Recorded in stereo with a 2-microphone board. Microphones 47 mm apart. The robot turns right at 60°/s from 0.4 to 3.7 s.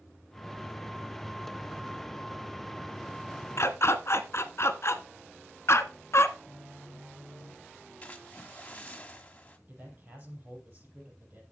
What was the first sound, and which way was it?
A dog barking, 65° left (ahead or behind).